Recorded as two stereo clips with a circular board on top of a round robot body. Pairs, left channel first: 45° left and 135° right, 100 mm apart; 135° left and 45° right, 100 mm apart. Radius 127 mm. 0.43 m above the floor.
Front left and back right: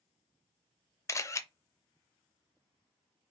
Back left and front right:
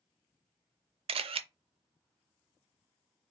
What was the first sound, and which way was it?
A camera shutter, 15° right.